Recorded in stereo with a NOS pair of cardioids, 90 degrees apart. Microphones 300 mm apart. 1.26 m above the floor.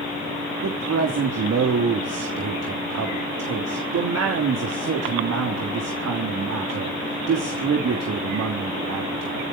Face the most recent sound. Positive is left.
turn(degrees=-55)